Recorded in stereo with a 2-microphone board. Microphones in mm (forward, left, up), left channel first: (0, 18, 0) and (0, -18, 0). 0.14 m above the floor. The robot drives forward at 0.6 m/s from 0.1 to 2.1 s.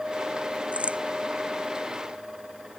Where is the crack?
35° right (ahead or behind).